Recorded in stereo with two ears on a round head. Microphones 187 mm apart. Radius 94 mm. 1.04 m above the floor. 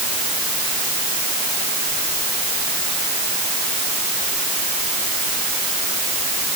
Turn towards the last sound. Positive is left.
No sound to turn to.